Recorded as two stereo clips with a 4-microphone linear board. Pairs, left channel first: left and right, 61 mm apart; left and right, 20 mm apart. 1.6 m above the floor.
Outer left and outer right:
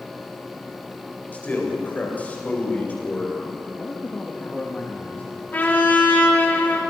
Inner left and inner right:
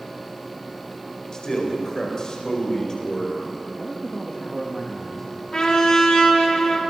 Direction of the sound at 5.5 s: 30° left (ahead or behind).